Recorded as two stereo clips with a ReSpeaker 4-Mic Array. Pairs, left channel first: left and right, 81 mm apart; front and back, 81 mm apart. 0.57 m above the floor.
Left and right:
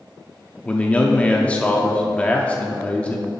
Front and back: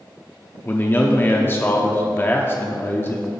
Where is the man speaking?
30° left, 0.7 m.